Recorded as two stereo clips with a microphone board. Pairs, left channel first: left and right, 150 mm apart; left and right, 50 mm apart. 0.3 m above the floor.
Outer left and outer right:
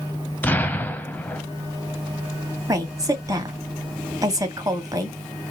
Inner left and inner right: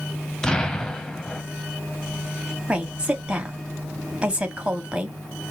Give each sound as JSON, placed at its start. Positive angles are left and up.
{"t": 0.4, "sound": "an explosion", "side_deg": 10, "distance_m": 0.8}
{"t": 2.7, "sound": "a woman speaking", "side_deg": -25, "distance_m": 1.5}